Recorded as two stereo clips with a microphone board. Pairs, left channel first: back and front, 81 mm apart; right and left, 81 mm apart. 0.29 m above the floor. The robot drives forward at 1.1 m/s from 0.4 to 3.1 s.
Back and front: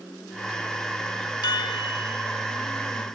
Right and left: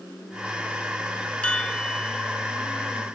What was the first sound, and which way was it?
A chime, 165° right.